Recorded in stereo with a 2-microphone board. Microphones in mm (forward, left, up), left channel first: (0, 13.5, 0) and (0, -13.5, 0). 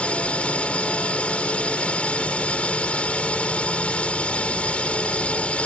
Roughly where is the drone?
Left.